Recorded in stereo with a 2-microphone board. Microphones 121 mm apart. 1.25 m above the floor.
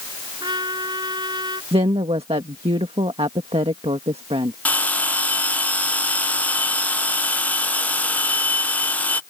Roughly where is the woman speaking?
Right.